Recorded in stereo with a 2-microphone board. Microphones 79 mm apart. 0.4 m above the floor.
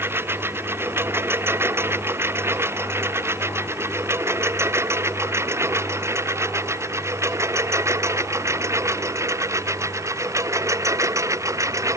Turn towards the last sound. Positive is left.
turn(degrees=-45)  # may be behind; listen again after turning